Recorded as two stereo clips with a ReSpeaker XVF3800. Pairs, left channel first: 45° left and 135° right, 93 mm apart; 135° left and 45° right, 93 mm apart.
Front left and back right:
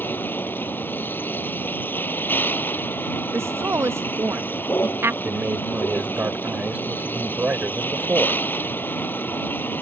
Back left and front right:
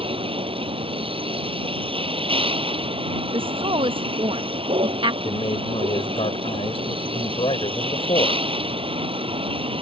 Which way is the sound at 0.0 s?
25° right.